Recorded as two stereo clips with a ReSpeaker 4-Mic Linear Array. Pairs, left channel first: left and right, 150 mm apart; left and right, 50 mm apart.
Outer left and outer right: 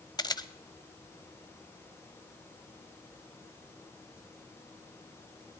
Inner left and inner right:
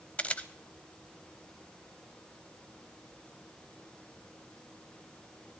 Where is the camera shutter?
25° left (ahead or behind), 0.7 m.